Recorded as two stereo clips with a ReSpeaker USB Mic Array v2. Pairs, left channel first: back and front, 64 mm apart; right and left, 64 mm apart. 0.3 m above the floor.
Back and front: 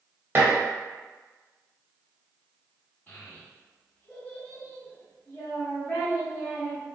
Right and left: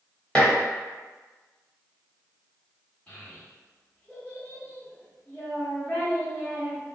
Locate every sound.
0.3 s dishes clattering: 30° right, 0.9 m
3.1 s a child speaking: 140° right, 1.1 m